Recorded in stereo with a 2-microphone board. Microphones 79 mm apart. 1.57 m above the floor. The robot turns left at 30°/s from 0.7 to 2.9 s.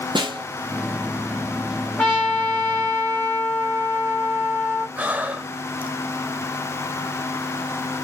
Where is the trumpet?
10° left (ahead or behind), 1.6 m; by 4.9 s 30° left (ahead or behind), 1.6 m.